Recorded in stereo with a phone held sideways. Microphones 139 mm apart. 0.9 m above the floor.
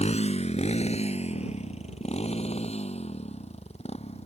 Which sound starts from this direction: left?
A motorcycle, at 0.0 s.